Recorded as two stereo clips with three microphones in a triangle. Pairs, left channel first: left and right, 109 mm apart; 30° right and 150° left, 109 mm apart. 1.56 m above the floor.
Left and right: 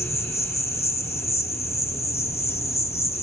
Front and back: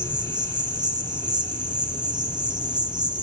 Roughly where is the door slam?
I don't hear a door slam.